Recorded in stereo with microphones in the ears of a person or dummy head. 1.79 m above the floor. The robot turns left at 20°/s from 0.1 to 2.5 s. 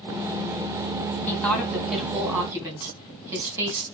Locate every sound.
1.3 s a woman speaking: 5° left (ahead or behind), 3 m; by 3.8 s 20° right (ahead or behind), 3 m